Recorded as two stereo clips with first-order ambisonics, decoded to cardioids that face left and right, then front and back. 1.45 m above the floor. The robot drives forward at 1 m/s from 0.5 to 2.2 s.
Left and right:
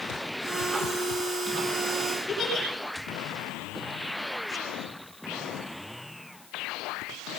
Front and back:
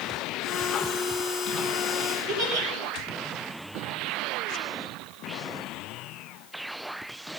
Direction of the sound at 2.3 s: 165° left.